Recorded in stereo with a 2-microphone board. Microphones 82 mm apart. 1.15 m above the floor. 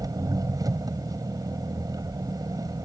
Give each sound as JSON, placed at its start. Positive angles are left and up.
{"t": 0.0, "sound": "an engine running", "side_deg": -45}